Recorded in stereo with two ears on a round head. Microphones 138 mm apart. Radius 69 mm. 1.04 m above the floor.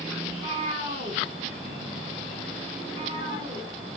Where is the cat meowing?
35° right (ahead or behind), 4.5 m.